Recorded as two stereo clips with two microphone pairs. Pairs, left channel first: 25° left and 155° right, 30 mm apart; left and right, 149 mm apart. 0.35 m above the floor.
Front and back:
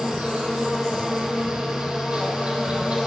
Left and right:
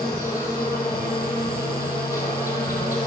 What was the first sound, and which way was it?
An insect, 160° left.